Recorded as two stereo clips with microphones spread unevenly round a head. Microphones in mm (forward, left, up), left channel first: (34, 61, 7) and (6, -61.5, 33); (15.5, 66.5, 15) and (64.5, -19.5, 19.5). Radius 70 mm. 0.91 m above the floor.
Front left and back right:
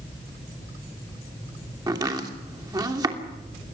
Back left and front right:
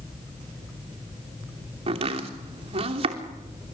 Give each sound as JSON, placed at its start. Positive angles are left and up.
{"t": 1.9, "sound": "chopping", "azimuth_deg": -40, "distance_m": 3.0}